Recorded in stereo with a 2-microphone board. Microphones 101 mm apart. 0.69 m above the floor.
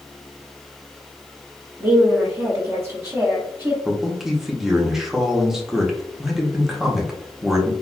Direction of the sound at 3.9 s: 5° right (ahead or behind).